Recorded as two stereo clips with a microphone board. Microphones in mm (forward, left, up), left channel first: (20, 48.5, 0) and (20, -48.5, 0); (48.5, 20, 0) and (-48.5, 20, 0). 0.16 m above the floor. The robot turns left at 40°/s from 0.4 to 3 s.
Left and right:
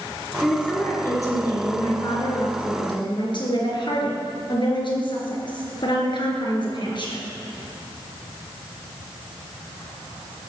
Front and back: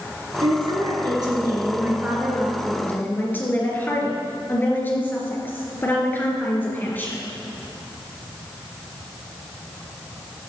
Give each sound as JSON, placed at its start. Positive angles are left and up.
{"t": 0.4, "sound": "a woman speaking", "azimuth_deg": 170, "distance_m": 3.0}